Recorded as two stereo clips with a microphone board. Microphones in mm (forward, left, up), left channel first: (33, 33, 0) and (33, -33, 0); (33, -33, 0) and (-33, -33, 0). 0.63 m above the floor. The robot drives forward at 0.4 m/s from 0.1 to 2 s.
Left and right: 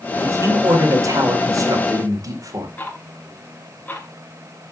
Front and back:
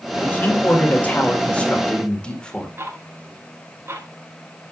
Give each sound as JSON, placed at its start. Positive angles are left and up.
{"t": 0.2, "sound": "a man speaking", "azimuth_deg": -55, "distance_m": 2.5}
{"t": 2.8, "sound": "ticking", "azimuth_deg": 145, "distance_m": 1.6}